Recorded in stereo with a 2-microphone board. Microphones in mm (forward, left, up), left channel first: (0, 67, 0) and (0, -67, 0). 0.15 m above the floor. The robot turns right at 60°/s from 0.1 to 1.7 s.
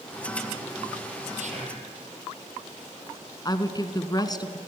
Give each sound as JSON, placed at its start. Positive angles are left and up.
{"t": 1.4, "sound": "whispering", "side_deg": -65, "distance_m": 5.0}
{"t": 3.5, "sound": "a woman speaking", "side_deg": 30, "distance_m": 1.3}